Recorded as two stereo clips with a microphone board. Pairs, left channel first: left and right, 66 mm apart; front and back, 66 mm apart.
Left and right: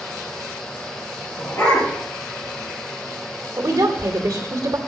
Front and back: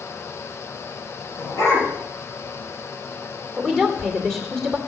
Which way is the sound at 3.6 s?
85° right.